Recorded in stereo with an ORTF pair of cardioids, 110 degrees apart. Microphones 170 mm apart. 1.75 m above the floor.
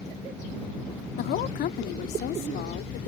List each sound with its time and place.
1.2 s a woman speaking: 70° left